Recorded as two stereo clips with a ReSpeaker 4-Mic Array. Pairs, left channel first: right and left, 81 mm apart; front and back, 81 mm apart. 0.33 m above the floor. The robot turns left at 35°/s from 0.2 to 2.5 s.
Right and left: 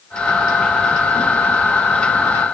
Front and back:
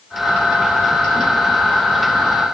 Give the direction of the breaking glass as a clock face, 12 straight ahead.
No breaking glass in this recording.